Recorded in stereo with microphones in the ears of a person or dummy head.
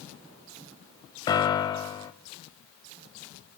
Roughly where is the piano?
Left.